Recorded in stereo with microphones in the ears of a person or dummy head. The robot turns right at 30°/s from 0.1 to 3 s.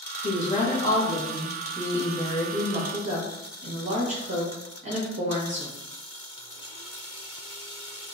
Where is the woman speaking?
140° left, 1.1 m; by 5.8 s 135° right, 1.1 m.